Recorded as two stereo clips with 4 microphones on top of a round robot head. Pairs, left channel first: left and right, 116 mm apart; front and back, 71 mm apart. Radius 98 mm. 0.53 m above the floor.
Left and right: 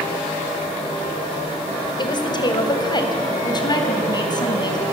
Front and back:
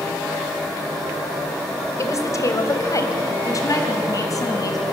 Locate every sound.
2.0 s a woman speaking: 45° left, 2.5 m; by 4.8 s 35° left, 5 m